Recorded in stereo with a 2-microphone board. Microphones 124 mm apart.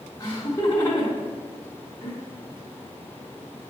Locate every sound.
0.2 s laughter: 30° left (ahead or behind), 1.8 m